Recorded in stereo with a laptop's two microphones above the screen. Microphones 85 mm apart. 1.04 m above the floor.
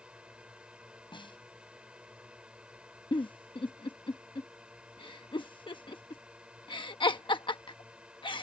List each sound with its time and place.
0.0 s a drone: 15° right (ahead or behind)
1.1 s a snare drum: 75° left (ahead or behind)
3.1 s a giggle: 75° left (ahead or behind)